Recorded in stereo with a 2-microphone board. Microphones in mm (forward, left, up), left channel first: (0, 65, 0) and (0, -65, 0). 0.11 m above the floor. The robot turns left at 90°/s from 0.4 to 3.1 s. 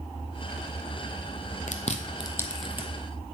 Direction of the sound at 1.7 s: 75° left (ahead or behind).